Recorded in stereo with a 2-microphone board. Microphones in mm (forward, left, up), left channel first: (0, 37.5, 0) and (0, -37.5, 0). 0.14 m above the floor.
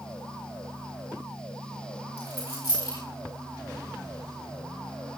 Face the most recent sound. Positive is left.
turn(degrees=75)  # may be behind; listen again after turning